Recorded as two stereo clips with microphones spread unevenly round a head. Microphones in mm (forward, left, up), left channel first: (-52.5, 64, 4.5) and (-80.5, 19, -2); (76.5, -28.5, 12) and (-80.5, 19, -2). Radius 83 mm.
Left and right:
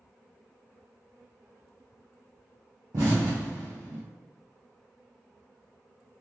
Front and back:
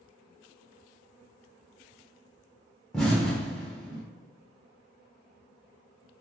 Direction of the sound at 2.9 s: 100° right.